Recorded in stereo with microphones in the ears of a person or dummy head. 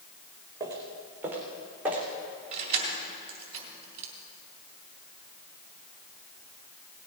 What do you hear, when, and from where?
0.6 s footsteps: 20° right (ahead or behind), 4 m; by 2.0 s 5° right (ahead or behind), 4 m
2.5 s keys jangling: 35° right (ahead or behind), 3 m